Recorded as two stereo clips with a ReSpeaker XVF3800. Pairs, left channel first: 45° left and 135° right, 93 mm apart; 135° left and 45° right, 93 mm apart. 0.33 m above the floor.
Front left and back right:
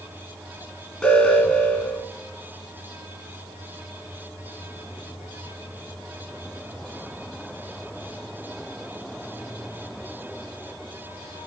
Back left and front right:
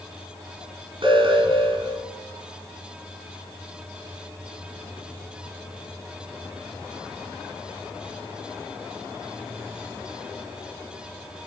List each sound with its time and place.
1.0 s an alarm: 40° right, 2.5 m